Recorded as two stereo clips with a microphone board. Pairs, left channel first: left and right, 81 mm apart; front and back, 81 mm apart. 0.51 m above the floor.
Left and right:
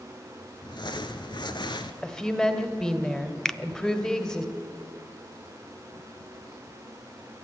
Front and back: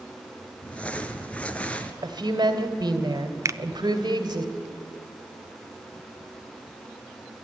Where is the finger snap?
170° left, 0.5 m.